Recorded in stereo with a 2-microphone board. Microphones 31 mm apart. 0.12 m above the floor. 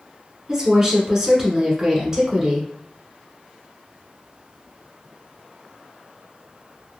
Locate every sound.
0.5 s a woman speaking: 20° right (ahead or behind), 1.1 m